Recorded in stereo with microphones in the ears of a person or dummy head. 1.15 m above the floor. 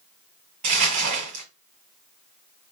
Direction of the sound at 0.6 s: 40° right (ahead or behind).